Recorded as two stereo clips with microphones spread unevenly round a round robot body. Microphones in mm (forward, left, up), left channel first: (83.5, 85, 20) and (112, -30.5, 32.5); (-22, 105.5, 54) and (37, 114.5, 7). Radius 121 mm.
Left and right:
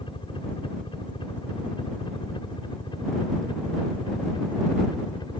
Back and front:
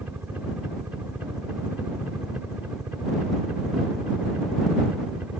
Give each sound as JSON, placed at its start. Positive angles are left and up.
{"t": 0.0, "sound": "a helicopter", "azimuth_deg": 60}